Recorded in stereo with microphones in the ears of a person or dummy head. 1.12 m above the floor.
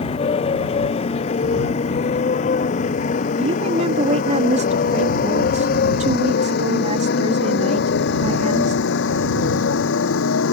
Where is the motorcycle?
35° left (ahead or behind); by 10.5 s 80° left.